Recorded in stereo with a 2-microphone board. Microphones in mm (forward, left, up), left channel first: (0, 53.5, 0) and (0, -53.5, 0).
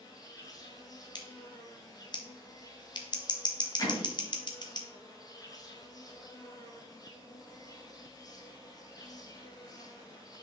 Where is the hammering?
40° left (ahead or behind), 2 m.